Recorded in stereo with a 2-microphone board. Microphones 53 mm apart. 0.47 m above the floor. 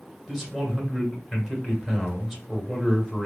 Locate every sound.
0.3 s a man speaking: 5° right (ahead or behind), 1.0 m